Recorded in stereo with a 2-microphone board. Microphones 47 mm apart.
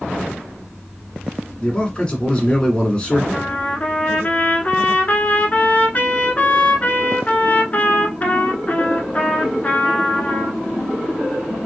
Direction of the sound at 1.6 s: 20° left (ahead or behind).